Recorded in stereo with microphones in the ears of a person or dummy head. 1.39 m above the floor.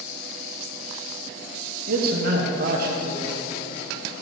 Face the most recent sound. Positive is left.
turn(degrees=-55)  # may be behind; listen again after turning